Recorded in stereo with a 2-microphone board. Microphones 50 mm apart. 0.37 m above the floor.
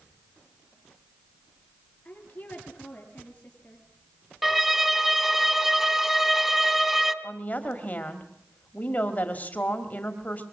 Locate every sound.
2.0 s a woman speaking: 30° left (ahead or behind), 7.5 m
4.4 s a violin: 5° right (ahead or behind), 1.4 m
7.2 s a woman speaking: 35° left (ahead or behind), 2.0 m